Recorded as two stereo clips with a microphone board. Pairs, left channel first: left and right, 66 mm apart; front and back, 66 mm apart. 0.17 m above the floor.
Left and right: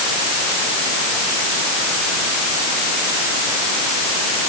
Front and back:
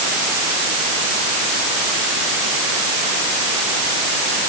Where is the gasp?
I don't hear a gasp.